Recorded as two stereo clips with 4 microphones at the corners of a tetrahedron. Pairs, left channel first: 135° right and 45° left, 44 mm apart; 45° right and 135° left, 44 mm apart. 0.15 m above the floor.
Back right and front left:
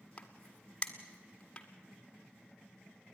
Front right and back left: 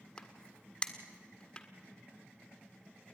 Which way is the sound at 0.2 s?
95° right.